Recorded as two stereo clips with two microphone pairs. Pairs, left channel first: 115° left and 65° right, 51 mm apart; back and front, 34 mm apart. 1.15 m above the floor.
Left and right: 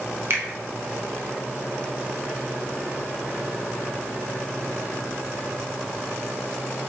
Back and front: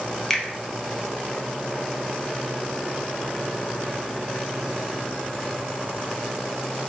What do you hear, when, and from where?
0.3 s a finger snap: 95° right, 0.6 m